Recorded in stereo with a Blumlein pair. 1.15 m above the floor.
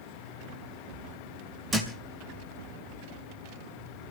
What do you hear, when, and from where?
1.7 s a thud: 15° right, 4 m